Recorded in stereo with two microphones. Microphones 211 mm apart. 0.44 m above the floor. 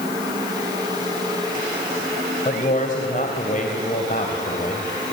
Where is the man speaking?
40° left (ahead or behind), 2.5 m.